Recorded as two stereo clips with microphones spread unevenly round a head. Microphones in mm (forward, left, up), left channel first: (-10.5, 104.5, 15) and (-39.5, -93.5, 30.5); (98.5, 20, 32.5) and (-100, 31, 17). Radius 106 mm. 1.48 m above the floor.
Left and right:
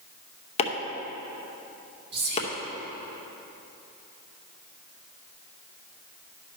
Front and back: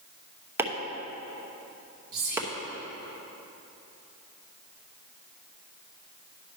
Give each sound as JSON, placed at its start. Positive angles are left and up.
{"t": 0.6, "sound": "chopping", "azimuth_deg": 100, "distance_m": 0.8}
{"t": 2.1, "sound": "whispering", "azimuth_deg": -135, "distance_m": 2.5}